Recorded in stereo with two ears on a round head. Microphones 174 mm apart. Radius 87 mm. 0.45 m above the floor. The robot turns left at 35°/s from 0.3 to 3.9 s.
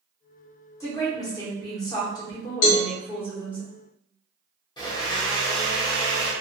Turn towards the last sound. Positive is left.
turn(degrees=25)  # may be behind; listen again after turning